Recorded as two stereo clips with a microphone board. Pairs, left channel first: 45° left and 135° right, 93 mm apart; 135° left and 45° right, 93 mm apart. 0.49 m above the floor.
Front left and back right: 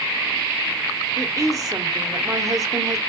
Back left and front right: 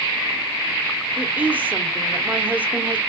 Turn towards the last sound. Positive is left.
turn(degrees=-110)